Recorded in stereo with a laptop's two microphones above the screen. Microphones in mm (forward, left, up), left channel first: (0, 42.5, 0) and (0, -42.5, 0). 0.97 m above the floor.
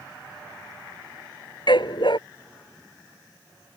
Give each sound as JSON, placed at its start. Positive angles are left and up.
{"t": 1.7, "sound": "a dog barking", "side_deg": 65}